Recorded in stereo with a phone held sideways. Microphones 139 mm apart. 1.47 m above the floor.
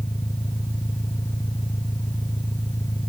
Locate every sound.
0.0 s an engine running: 20° left (ahead or behind)